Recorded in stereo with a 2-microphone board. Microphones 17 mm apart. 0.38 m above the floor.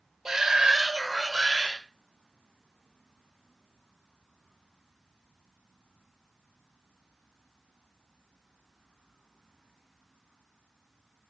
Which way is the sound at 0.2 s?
30° right (ahead or behind).